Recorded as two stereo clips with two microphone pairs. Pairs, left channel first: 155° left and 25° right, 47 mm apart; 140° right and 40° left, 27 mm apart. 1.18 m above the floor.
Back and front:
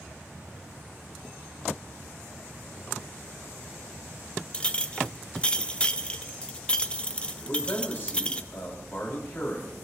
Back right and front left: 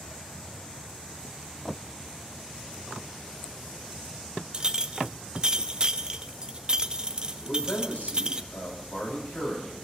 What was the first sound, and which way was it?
A clink, 90° left.